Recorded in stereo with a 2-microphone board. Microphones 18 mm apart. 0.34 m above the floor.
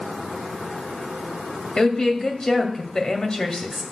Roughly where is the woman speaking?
Left.